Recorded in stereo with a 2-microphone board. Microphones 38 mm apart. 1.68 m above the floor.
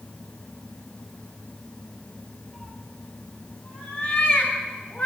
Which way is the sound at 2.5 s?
15° left (ahead or behind).